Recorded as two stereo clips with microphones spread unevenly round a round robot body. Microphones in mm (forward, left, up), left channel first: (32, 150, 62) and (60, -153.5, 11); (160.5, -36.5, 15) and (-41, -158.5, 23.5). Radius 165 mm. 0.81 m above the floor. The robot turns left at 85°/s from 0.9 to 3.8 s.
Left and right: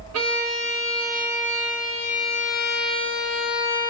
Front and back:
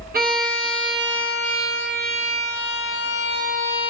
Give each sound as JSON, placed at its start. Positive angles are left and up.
{"t": 0.1, "sound": "a violin", "azimuth_deg": -100, "distance_m": 1.1}